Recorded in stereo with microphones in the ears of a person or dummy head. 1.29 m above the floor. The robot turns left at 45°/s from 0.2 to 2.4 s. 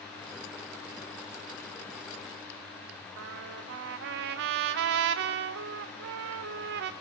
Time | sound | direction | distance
3.2 | a trumpet | 55° right (ahead or behind) | 0.6 m